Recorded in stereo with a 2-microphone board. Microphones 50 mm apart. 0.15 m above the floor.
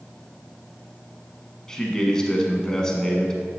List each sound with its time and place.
1.7 s a man speaking: 15° left (ahead or behind), 1.1 m